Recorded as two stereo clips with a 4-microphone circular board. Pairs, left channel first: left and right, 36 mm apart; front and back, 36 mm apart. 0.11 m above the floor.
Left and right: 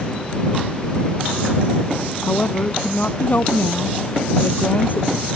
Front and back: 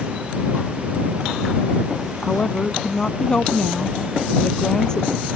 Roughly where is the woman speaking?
Ahead left.